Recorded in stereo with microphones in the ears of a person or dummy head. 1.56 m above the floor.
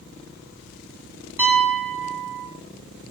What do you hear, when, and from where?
1.4 s a piano: 15° right (ahead or behind), 7 m